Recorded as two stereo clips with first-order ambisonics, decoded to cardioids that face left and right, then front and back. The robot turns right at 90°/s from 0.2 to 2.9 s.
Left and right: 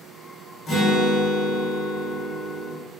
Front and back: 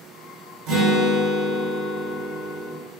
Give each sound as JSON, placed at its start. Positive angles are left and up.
{"t": 0.7, "sound": "a guitar", "azimuth_deg": 155, "distance_m": 1.2}